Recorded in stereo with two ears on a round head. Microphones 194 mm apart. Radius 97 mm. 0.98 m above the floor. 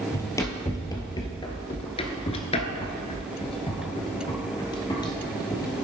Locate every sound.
0.1 s running footsteps: 15° left (ahead or behind), 1.7 m